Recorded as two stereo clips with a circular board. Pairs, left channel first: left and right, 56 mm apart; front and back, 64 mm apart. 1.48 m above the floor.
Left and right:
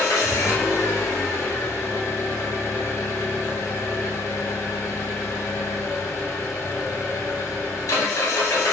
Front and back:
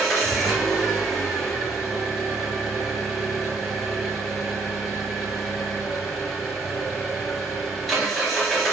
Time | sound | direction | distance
0.0 | an engine running | 90° left | 0.8 m